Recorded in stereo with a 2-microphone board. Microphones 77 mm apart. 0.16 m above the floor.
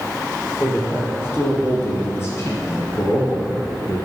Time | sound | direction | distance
0.6 | a man speaking | 30° left (ahead or behind) | 4.5 m